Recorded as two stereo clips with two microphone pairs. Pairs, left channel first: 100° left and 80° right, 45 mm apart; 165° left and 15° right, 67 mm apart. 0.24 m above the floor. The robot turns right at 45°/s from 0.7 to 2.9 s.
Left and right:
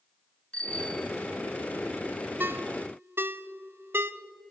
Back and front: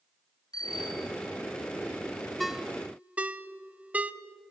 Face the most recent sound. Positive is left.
turn(degrees=-80)